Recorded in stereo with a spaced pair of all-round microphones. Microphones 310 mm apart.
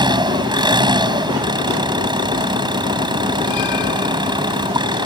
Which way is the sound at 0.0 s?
15° right (ahead or behind).